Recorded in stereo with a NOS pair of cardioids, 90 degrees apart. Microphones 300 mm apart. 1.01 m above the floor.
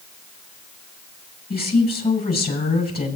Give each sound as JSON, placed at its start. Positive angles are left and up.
{"t": 1.5, "sound": "a woman speaking", "azimuth_deg": 30, "distance_m": 7.0}